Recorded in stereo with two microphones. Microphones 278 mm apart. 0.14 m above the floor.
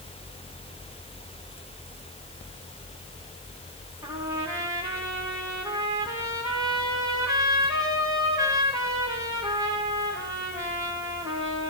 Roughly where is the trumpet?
Centre.